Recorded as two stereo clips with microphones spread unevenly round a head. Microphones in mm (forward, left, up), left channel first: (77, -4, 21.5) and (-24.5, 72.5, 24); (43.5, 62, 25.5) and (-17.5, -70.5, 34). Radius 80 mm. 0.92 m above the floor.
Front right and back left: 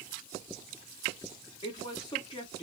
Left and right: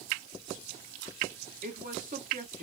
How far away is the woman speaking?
About 1.4 m.